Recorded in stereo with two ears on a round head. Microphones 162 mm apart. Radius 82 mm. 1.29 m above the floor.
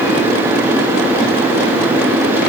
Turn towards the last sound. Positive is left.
No sound to turn to.